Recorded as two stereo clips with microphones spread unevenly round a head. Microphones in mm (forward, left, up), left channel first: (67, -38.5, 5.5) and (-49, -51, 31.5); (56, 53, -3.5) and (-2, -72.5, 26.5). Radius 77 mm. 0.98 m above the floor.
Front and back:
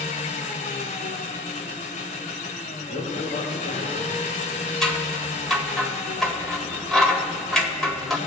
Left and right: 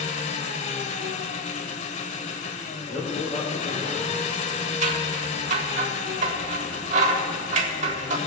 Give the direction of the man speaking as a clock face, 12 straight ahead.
12 o'clock.